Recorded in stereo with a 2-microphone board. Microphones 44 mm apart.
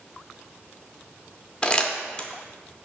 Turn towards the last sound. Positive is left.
turn(degrees=20)  # may be behind; listen again after turning